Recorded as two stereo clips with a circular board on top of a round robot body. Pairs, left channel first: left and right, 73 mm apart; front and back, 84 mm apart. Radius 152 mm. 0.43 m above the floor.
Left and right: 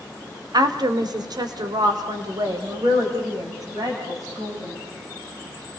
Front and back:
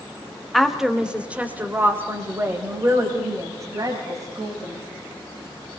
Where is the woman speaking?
85° right, 1.7 m; by 4.8 s 135° right, 4.5 m.